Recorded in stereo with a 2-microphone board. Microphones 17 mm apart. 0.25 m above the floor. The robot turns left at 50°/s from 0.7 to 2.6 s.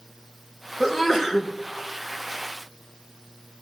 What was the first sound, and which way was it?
A sneeze, 5° right.